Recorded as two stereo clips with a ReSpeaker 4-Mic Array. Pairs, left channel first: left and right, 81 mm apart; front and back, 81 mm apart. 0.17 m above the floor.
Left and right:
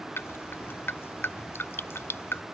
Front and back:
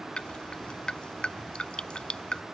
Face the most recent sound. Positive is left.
turn(degrees=70)